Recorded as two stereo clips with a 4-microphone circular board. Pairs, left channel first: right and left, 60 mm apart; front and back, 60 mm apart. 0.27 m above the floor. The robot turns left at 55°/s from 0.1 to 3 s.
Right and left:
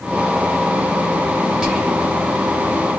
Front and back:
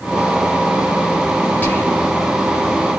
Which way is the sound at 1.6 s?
25° left.